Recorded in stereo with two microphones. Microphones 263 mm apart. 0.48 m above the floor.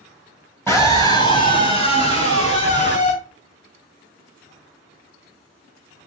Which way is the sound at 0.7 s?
10° left (ahead or behind).